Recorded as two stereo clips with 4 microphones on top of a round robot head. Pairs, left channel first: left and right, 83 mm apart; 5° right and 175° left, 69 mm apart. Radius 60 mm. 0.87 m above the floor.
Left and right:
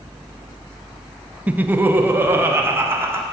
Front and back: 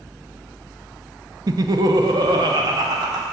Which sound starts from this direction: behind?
Laughter, at 1.5 s.